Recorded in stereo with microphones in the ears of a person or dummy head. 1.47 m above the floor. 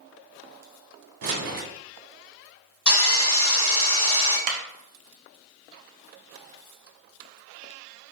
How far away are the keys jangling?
About 1.1 m.